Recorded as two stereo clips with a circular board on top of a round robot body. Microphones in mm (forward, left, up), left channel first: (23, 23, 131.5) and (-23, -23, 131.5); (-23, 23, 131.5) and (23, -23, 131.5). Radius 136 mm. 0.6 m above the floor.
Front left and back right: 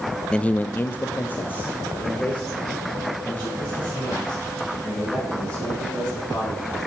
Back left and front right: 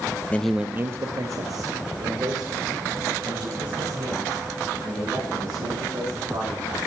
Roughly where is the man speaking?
Left.